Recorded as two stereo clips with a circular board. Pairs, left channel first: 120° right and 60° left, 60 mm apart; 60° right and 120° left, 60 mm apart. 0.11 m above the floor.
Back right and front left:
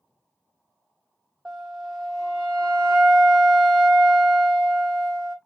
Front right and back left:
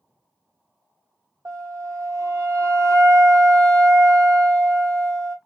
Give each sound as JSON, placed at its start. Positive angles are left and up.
{"t": 1.4, "sound": "a flute", "azimuth_deg": 145, "distance_m": 0.9}